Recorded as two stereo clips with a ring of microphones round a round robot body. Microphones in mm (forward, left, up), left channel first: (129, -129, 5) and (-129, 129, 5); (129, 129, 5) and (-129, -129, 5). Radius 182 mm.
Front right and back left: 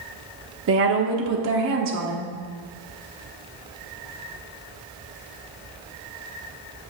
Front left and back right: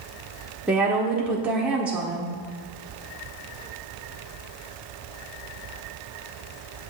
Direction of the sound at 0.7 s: 140° left.